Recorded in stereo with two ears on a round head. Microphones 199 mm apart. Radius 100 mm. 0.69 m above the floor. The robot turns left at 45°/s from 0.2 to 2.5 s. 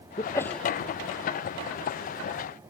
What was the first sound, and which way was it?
A sneeze, 20° left (ahead or behind).